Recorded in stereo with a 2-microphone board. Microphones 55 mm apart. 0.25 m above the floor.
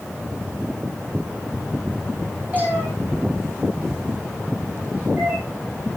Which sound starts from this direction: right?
A cat meowing, at 2.5 s.